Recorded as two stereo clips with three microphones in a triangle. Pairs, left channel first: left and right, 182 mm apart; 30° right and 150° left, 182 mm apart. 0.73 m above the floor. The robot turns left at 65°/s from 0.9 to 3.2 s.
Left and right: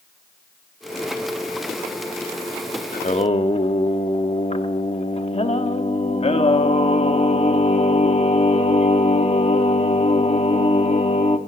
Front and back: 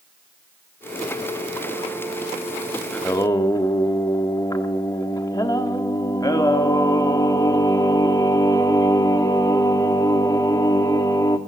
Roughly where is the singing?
Ahead left.